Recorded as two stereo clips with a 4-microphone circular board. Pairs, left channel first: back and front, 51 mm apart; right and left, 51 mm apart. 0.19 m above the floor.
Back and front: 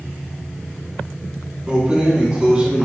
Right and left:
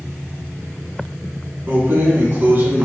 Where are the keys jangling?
60° left, 1.0 m.